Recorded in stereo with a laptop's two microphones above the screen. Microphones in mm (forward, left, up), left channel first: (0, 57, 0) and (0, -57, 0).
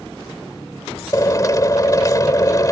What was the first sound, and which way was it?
A drill, 35° left (ahead or behind).